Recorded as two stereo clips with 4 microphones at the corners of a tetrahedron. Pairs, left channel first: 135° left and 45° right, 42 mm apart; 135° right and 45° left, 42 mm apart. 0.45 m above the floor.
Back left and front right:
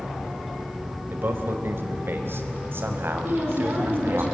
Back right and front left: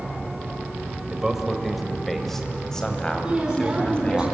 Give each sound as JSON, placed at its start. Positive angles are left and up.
{"t": 1.1, "sound": "a man speaking", "azimuth_deg": -30, "distance_m": 2.0}
{"t": 3.2, "sound": "a woman speaking", "azimuth_deg": -25, "distance_m": 4.0}